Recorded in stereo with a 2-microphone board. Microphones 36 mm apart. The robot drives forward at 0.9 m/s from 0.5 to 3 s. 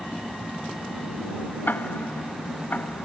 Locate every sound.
1.7 s ticking: 65° left (ahead or behind); by 3.1 s 60° left (ahead or behind)